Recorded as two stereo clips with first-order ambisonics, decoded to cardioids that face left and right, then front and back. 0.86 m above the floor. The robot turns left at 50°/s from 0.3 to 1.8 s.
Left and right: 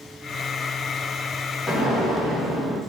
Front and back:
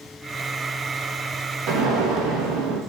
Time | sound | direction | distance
1.7 | an explosion | 175° left | 0.5 m